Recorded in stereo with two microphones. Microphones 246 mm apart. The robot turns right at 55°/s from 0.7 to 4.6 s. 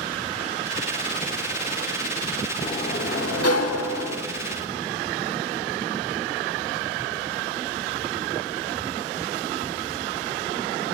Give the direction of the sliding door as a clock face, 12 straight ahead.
11 o'clock.